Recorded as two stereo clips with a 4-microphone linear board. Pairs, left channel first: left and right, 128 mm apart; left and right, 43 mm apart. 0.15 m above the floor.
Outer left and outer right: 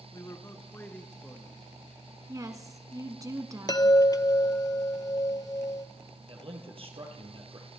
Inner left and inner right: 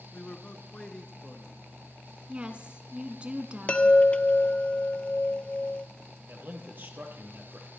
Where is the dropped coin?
I don't hear a dropped coin.